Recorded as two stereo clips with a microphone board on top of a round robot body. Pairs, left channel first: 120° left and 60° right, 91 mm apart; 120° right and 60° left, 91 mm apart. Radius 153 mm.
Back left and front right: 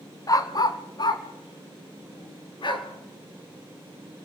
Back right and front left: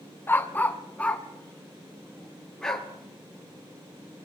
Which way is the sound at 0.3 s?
170° left.